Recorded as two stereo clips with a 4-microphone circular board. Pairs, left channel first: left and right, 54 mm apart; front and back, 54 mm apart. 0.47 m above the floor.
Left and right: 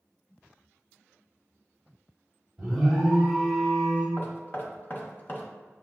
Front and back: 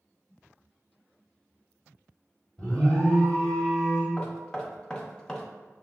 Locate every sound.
2.6 s an alarm: 10° right, 1.5 m
4.2 s knocking: 65° left, 0.6 m